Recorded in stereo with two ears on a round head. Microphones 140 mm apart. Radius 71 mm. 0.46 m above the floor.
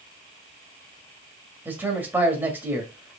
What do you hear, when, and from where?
1.6 s a man speaking: 10° right (ahead or behind), 1.7 m